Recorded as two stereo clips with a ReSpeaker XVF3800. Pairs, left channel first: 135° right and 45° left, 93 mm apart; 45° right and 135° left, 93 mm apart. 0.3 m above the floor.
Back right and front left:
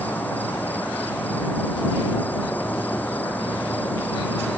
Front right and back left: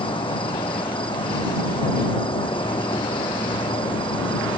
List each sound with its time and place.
0.0 s an insect: 65° right